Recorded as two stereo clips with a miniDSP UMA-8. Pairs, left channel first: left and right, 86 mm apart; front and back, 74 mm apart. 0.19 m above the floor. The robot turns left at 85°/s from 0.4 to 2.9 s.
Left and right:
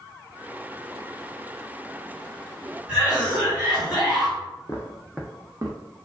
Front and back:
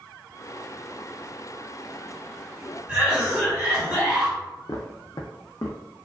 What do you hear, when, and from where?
2.9 s a cough: 150° right, 1.4 m
4.7 s footsteps: 35° left, 0.6 m; by 5.8 s 45° right, 0.7 m